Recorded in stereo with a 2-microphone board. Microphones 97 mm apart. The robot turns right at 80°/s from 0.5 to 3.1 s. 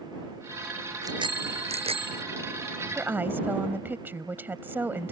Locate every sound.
1.0 s a bicycle bell: 145° right; by 2.2 s 45° right
2.9 s a woman speaking: 20° right (ahead or behind)